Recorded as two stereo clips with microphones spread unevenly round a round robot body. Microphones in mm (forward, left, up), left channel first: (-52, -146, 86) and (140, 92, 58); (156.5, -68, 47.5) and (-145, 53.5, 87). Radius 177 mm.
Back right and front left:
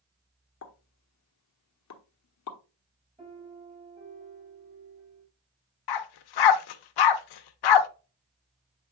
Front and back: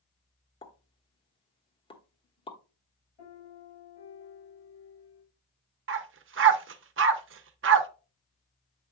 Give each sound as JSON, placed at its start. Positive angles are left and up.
{"t": 0.6, "sound": "a pop", "azimuth_deg": -95, "distance_m": 1.2}
{"t": 3.2, "sound": "a piano", "azimuth_deg": -25, "distance_m": 6.0}
{"t": 5.9, "sound": "a dog barking", "azimuth_deg": -145, "distance_m": 0.7}